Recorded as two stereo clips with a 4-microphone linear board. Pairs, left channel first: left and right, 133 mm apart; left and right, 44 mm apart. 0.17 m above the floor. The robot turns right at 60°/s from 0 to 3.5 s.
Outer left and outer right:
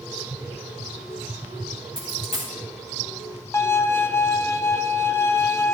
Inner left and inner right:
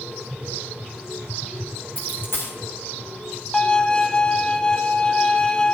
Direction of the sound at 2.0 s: 40° left (ahead or behind).